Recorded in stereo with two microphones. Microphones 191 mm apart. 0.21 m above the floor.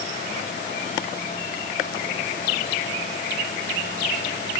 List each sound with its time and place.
Only background noise.